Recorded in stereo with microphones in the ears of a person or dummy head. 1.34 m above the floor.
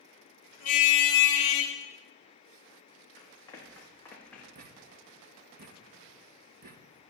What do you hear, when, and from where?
0.6 s a car horn: 55° left (ahead or behind), 3 m; by 1.7 s 40° left (ahead or behind), 3.5 m
3.2 s running footsteps: 30° left (ahead or behind), 5.5 m; by 4.5 s 10° left (ahead or behind), 5.5 m
4.5 s a thud: 45° right (ahead or behind), 1.2 m